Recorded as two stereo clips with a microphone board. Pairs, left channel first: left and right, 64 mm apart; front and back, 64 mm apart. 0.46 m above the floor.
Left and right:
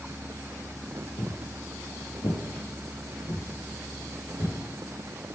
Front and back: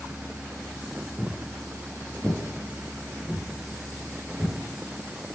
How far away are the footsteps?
About 2.5 m.